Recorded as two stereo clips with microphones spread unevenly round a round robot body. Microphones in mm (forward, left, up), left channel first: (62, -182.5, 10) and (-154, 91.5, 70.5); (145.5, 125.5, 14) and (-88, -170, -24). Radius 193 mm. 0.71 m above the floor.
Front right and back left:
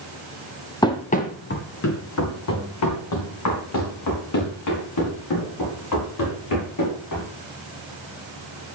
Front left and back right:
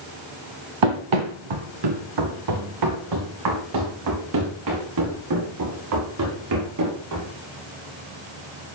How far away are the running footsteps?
About 1.4 m.